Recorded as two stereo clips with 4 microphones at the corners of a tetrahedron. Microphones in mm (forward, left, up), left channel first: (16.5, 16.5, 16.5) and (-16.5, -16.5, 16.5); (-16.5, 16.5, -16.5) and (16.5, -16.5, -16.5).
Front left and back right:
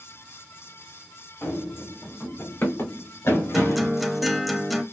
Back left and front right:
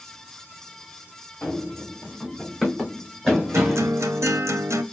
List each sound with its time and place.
1.4 s running footsteps: 70° left, 1.7 m; by 3.9 s 35° left, 3 m
3.5 s a guitar: 45° right, 0.7 m